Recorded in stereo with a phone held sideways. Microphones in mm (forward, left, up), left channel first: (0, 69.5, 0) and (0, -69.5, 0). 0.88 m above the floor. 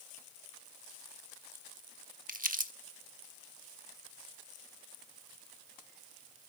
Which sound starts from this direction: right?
Crumpling, at 2.3 s.